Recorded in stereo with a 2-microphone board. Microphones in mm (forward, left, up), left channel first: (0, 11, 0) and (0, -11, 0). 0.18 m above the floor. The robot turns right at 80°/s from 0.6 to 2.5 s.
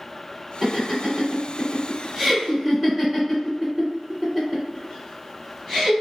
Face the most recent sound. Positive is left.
turn(degrees=-15)  # may be behind; listen again after turning